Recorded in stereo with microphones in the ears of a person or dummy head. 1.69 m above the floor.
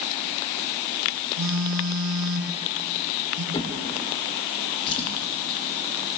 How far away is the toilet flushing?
I don't hear a toilet flushing.